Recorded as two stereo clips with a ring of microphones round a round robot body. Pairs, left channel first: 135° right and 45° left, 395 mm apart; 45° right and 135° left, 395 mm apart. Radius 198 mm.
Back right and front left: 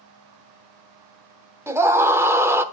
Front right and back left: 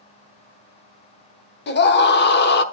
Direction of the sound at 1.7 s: 30° right.